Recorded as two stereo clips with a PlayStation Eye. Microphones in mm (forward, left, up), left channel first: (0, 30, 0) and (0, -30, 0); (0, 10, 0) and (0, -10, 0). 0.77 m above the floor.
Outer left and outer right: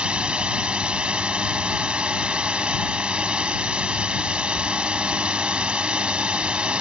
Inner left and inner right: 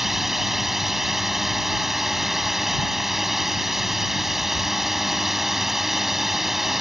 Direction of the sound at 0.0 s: 15° right (ahead or behind).